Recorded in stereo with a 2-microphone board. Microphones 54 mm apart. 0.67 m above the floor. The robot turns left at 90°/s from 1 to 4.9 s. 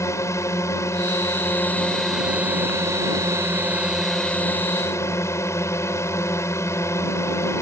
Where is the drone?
100° left; by 7.6 s 110° left.